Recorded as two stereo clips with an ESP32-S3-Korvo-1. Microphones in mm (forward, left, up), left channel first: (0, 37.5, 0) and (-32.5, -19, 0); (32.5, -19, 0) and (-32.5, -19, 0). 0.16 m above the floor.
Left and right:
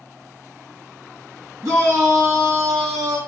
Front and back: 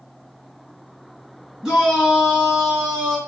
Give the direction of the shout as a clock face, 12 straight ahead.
4 o'clock.